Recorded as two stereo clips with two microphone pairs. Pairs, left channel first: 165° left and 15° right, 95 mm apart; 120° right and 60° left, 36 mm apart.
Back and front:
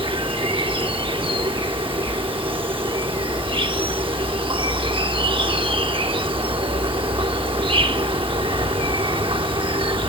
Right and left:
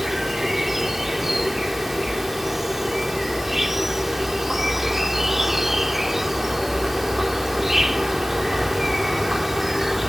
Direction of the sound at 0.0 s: 20° right.